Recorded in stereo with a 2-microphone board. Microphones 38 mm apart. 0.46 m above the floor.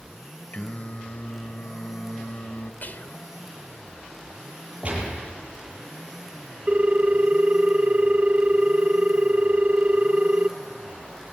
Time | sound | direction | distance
0.5 | singing | 45° left (ahead or behind) | 1.2 m
2.8 | whispering | 50° left (ahead or behind) | 1.5 m
4.8 | a gunshot | 35° right (ahead or behind) | 7 m
6.7 | a ringtone | 40° right (ahead or behind) | 0.6 m